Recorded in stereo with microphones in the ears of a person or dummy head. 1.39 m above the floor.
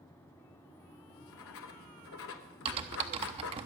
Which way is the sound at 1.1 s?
70° left (ahead or behind).